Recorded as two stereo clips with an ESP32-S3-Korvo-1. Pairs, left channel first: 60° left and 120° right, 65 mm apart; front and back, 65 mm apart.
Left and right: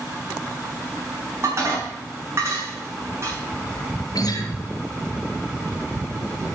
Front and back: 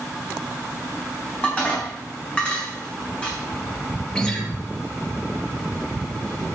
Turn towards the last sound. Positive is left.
turn(degrees=80)